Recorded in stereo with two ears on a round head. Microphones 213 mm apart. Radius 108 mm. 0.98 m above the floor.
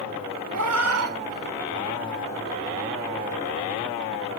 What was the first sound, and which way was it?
A cat meowing, 75° right (ahead or behind).